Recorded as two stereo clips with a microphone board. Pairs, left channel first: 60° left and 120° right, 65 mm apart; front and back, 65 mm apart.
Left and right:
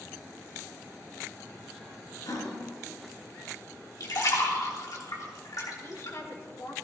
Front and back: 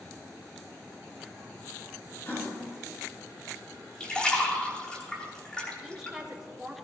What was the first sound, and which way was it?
A gasp, 60° left.